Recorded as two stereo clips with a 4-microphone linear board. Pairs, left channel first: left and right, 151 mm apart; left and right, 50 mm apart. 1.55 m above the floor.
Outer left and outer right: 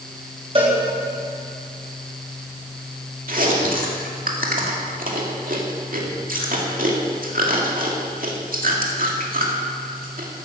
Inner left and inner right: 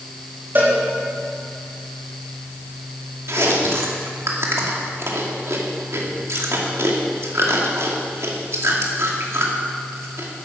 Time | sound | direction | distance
0.6 | a cowbell | 40° right (ahead or behind) | 4 m
3.3 | chewing | 65° right (ahead or behind) | 2 m